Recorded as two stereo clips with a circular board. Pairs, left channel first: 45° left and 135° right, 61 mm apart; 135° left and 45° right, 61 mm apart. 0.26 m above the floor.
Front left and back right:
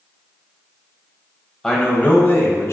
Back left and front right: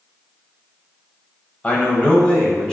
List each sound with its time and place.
1.6 s a man speaking: 120° left, 1.0 m; by 2.7 s 60° left, 1.4 m